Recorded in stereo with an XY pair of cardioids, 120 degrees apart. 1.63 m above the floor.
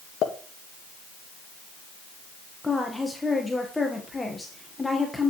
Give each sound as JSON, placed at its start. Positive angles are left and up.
{"t": 0.2, "sound": "a pop", "azimuth_deg": 60, "distance_m": 1.7}
{"t": 2.6, "sound": "a woman speaking", "azimuth_deg": 15, "distance_m": 1.6}